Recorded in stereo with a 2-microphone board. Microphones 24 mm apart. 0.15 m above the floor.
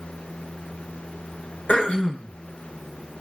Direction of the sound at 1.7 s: 60° left (ahead or behind).